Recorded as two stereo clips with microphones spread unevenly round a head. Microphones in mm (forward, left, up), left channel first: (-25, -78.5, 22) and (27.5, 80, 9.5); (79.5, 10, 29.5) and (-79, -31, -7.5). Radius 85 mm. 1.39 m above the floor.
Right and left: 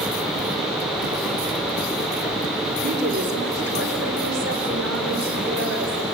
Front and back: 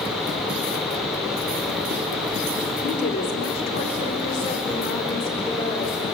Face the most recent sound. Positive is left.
turn(degrees=85)